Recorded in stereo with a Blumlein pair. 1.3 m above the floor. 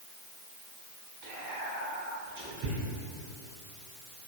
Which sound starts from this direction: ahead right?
Whispering, at 1.2 s.